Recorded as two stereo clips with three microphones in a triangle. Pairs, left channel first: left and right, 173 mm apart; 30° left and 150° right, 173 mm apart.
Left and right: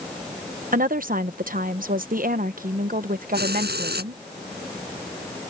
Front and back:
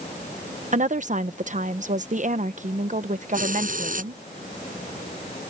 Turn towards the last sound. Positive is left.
turn(degrees=-110)